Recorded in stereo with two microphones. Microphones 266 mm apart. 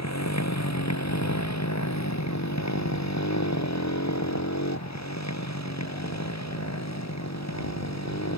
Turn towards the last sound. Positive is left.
turn(degrees=75)  # may be behind; listen again after turning